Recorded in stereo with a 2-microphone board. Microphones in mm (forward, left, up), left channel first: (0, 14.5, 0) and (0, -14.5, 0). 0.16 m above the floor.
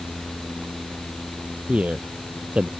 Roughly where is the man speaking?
Right.